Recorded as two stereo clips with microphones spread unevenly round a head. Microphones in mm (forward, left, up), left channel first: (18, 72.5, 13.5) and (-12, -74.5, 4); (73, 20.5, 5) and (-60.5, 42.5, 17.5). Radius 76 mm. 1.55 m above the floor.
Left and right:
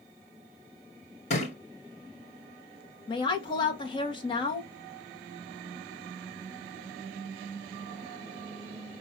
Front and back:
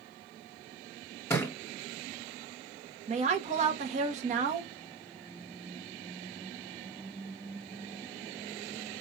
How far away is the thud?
About 2.0 m.